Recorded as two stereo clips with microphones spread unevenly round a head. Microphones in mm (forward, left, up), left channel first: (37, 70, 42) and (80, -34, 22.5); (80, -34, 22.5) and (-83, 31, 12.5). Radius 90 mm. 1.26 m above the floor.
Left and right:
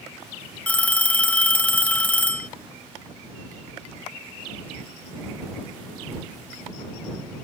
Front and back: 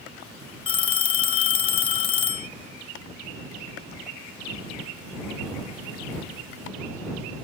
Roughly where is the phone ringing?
Ahead left.